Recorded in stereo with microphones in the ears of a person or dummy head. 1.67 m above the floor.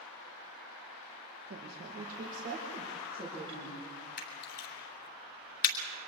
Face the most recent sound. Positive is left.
turn(degrees=60)  # may be behind; listen again after turning